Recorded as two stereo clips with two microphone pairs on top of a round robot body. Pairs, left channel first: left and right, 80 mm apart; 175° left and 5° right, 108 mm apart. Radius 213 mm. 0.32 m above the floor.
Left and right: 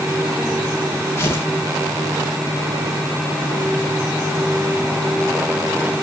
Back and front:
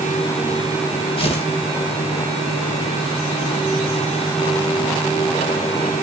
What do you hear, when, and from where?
1.2 s tearing paper: 150° left, 3 m